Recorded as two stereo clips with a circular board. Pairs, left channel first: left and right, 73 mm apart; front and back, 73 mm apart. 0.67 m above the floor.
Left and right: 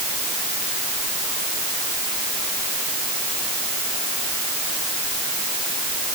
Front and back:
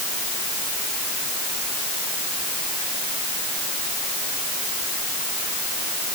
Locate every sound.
Only background noise.